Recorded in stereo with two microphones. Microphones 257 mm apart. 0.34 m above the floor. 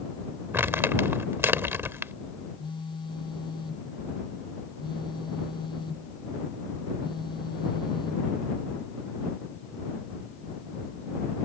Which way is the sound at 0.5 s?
10° right (ahead or behind).